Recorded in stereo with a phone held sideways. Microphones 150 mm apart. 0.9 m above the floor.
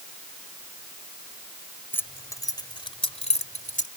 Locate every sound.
1.9 s keys jangling: 15° left (ahead or behind); by 3.9 s 60° left (ahead or behind)